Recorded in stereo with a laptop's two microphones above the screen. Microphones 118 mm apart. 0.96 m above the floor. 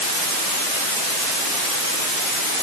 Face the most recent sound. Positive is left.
No sound to turn to.